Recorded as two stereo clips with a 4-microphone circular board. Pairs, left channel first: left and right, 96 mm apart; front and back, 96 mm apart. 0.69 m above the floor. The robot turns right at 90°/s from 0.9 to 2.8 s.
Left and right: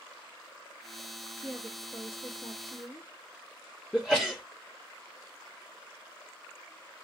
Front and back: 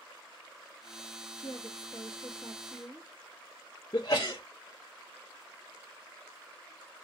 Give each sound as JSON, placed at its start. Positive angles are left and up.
{"t": 1.4, "sound": "a woman speaking", "azimuth_deg": -10, "distance_m": 1.3}
{"t": 3.9, "sound": "a sneeze", "azimuth_deg": 10, "distance_m": 0.6}